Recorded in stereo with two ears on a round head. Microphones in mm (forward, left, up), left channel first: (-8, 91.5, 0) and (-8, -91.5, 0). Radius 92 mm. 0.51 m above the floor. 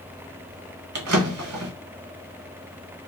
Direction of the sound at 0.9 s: 75° right (ahead or behind).